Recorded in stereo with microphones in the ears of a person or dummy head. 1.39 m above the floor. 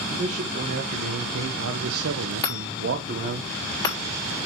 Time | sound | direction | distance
0.1 | a man speaking | 35° right (ahead or behind) | 1.8 m
2.4 | a chime | 25° left (ahead or behind) | 4 m